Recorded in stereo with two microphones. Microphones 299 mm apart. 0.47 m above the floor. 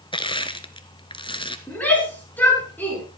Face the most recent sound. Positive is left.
turn(degrees=5)  # may be behind; listen again after turning